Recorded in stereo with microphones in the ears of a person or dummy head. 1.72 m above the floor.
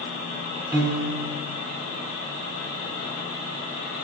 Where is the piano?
15° right (ahead or behind), 1.3 m.